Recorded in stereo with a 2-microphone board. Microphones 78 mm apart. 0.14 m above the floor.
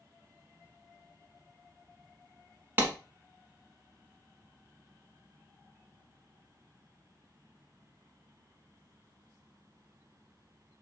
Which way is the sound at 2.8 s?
25° right (ahead or behind).